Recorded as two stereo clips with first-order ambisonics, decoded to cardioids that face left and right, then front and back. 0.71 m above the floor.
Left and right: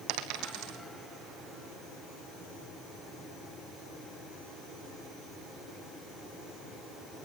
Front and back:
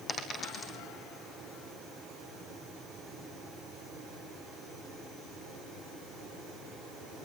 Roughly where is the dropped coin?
Right.